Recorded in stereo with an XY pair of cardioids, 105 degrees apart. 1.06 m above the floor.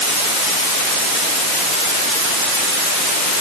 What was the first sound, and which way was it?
Only background noise.